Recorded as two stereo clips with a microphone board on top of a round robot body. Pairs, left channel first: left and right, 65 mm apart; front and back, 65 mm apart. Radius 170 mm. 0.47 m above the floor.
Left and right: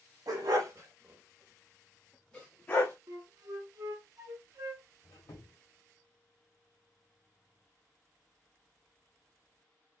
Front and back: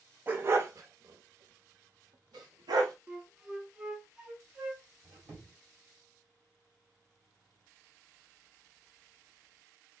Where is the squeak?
130° left, 1.7 m.